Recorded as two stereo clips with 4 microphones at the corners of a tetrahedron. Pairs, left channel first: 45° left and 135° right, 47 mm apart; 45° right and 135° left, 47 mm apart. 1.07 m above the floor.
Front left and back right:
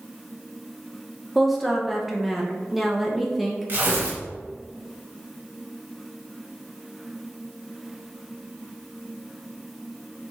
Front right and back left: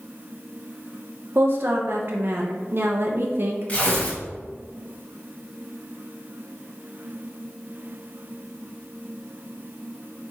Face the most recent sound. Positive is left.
turn(degrees=-100)